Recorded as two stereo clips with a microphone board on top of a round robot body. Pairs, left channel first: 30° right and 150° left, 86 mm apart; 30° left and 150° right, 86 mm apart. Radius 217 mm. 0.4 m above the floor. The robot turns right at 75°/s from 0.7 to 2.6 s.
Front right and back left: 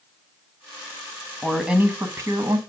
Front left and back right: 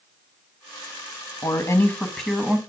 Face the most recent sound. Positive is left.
turn(degrees=145)